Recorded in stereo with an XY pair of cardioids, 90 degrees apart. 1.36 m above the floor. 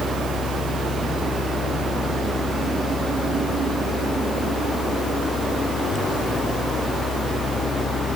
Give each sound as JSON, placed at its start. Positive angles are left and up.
{"t": 0.0, "sound": "a fan", "azimuth_deg": 65}